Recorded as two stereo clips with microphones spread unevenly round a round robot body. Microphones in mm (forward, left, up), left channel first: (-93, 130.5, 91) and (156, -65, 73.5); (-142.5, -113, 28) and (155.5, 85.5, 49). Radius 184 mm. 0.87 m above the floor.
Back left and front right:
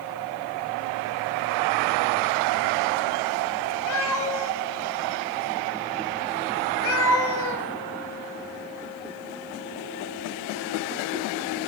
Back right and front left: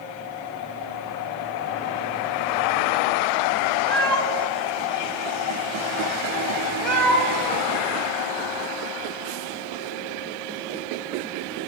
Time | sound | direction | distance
3.9 | a cat meowing | 125° left | 0.8 m